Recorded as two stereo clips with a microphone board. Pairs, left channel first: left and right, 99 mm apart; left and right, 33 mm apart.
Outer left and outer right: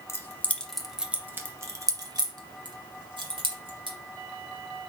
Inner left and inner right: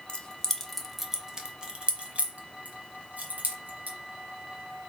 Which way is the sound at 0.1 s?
30° left (ahead or behind).